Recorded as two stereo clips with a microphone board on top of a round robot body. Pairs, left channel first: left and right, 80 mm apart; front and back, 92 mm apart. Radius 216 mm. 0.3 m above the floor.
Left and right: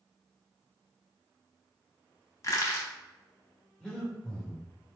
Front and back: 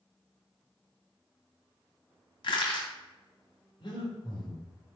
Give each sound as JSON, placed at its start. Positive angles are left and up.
{"t": 2.4, "sound": "crushing", "azimuth_deg": 35, "distance_m": 1.0}
{"t": 3.8, "sound": "breathing", "azimuth_deg": 5, "distance_m": 1.6}